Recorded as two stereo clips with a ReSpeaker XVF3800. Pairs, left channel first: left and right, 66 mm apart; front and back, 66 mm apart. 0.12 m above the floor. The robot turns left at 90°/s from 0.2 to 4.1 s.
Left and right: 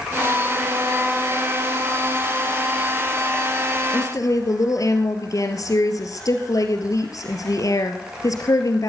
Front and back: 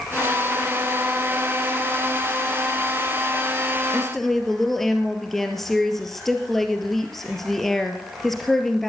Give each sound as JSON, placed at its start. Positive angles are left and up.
{"t": 3.9, "sound": "a woman speaking", "azimuth_deg": 100, "distance_m": 2.0}